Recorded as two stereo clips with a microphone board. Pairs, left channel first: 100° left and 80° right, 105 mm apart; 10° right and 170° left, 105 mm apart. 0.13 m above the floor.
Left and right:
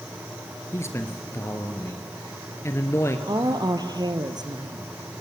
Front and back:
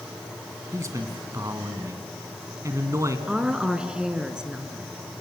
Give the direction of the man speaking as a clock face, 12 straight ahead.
7 o'clock.